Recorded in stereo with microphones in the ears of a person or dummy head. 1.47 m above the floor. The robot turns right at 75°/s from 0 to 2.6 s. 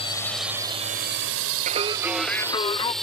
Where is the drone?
30° left (ahead or behind); by 3.0 s 5° left (ahead or behind).